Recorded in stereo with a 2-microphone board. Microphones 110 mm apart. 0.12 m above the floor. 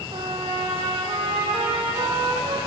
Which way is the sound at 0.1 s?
50° right (ahead or behind).